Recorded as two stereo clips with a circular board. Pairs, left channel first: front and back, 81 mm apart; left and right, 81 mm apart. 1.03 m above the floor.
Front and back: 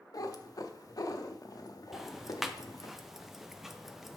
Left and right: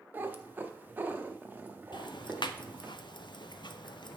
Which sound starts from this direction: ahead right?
A cat meowing, at 0.1 s.